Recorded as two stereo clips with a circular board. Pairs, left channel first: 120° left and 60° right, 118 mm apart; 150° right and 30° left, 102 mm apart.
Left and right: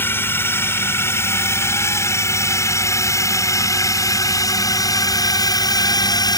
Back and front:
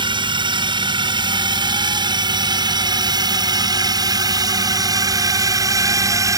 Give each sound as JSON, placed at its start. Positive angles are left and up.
{"t": 0.0, "sound": "a drone", "azimuth_deg": 55}